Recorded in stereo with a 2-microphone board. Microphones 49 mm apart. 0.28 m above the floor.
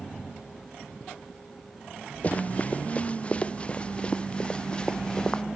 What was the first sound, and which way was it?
Running footsteps, 30° left (ahead or behind).